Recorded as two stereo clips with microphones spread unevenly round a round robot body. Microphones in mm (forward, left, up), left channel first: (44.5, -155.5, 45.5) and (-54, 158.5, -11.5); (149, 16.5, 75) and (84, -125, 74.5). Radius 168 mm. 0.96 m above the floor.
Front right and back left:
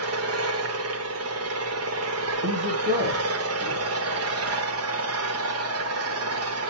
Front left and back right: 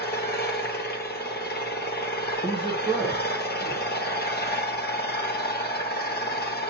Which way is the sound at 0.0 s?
65° left.